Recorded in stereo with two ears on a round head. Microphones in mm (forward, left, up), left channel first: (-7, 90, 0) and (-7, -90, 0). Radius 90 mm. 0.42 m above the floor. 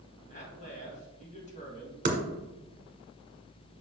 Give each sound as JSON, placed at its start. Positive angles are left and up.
{"t": 0.3, "sound": "a man speaking", "side_deg": 35, "distance_m": 2.5}
{"t": 2.0, "sound": "typing on a keyboard", "side_deg": -35, "distance_m": 1.5}